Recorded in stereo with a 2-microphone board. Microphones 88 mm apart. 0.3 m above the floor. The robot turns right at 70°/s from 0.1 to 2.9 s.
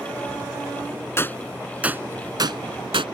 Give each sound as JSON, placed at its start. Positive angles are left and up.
{"t": 1.2, "sound": "a gunshot", "side_deg": 30}